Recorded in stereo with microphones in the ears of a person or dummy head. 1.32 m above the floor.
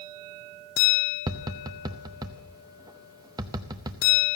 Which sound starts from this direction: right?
Tapping, at 1.3 s.